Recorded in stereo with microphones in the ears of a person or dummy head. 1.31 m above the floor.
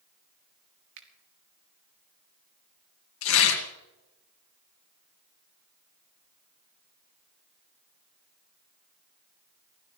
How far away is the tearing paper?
About 1.9 m.